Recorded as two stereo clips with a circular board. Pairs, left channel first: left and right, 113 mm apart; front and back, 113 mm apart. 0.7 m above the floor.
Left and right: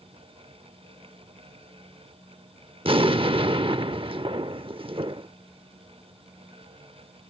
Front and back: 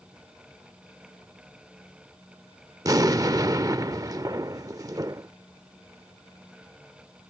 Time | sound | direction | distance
2.9 | an explosion | 125° right | ?